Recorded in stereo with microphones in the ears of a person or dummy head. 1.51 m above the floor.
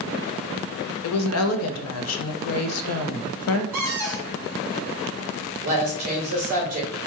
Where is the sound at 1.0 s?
85° left, 0.5 m.